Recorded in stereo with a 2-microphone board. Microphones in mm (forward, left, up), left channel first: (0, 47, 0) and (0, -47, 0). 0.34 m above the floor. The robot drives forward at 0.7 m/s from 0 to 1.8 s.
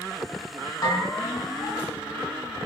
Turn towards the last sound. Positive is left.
turn(degrees=35)  # may be behind; listen again after turning